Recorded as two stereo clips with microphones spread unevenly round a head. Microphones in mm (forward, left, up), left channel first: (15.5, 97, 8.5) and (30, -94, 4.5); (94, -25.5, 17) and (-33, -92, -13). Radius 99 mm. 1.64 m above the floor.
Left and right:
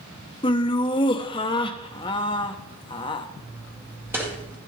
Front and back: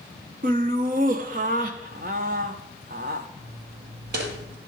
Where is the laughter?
160° left, 0.8 m.